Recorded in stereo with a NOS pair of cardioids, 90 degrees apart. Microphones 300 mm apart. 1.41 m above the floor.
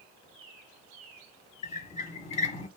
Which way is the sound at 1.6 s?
25° left.